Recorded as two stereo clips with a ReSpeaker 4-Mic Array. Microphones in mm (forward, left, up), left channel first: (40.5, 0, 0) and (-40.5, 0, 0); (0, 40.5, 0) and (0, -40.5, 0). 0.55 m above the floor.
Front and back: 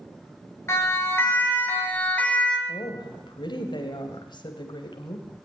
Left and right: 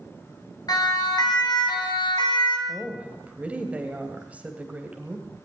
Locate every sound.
0.7 s a siren: 55° left, 4.5 m; by 2.6 s 75° left, 4 m
2.7 s a woman speaking: 15° right, 2.5 m